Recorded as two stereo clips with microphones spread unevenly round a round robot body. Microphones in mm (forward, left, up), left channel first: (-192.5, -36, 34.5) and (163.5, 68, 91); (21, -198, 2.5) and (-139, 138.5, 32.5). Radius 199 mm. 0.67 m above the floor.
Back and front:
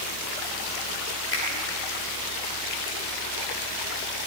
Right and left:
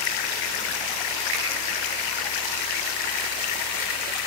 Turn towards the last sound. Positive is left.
turn(degrees=140)